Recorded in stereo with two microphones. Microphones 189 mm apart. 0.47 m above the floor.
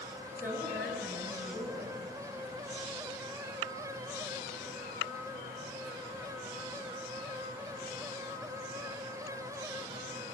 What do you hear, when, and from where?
0.4 s a woman speaking: 10° right (ahead or behind), 7.5 m